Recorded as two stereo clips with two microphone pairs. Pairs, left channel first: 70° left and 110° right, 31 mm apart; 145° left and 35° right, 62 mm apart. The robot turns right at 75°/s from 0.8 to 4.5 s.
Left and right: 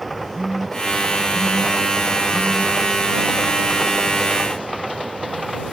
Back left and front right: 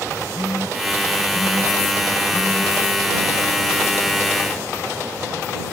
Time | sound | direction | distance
0.3 | a phone buzzing | 140° left | ?